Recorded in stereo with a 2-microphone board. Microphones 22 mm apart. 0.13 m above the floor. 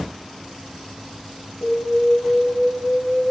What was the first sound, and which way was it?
An alarm, 5° left (ahead or behind).